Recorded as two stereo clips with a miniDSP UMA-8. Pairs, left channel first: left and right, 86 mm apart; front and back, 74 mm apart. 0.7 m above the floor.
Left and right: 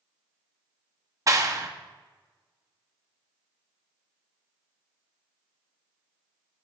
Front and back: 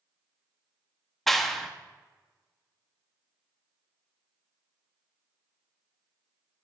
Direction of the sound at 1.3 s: 85° right.